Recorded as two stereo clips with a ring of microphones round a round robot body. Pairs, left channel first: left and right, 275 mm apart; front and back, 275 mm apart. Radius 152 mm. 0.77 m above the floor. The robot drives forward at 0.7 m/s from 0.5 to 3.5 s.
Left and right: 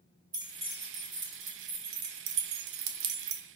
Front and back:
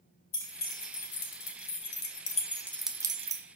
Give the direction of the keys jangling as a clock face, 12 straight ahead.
1 o'clock.